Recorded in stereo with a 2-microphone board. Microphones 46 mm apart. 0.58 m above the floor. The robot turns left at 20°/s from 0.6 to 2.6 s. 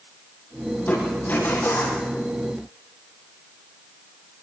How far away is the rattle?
No rattle in this recording.